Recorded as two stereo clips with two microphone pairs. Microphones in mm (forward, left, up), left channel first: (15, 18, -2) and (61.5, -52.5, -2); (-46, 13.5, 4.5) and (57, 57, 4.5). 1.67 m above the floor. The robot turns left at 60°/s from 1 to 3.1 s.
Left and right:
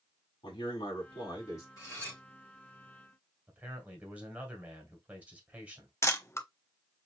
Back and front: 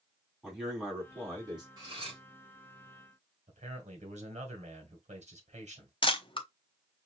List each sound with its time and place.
0.4 s a man speaking: 110° left, 3 m; by 1.7 s 70° left, 3 m
1.8 s cutlery clinking: 70° left, 4 m; by 2.2 s 45° left, 4 m
3.5 s a man speaking: 15° left, 1.6 m
6.0 s a camera shutter: 175° left, 0.7 m